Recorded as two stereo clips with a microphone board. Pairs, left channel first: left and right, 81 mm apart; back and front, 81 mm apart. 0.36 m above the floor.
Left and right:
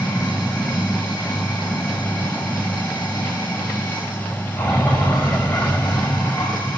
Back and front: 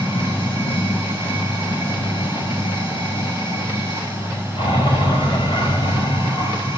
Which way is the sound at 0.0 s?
165° left.